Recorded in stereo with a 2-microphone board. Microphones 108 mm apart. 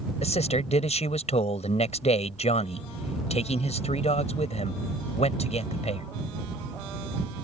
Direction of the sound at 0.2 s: 90° left.